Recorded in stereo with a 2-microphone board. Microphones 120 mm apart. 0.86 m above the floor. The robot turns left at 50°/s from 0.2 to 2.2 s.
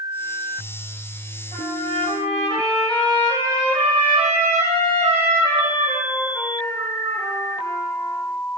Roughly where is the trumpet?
Right.